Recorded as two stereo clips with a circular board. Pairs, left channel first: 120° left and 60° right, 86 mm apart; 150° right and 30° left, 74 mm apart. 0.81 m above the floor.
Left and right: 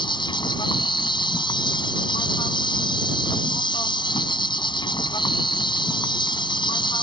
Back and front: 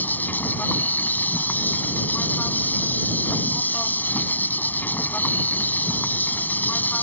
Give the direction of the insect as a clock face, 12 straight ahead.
7 o'clock.